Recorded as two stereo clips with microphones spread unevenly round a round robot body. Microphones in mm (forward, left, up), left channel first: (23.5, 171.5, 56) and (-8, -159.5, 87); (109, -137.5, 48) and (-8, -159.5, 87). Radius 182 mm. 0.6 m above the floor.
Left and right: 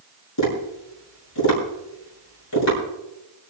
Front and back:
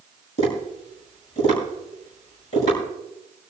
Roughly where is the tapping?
Ahead left.